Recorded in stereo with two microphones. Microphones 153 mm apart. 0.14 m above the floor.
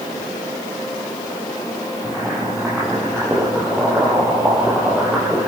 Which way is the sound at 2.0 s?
5° right (ahead or behind).